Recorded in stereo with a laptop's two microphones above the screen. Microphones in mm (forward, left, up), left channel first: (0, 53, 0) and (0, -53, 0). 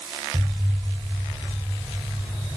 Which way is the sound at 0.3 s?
40° right (ahead or behind).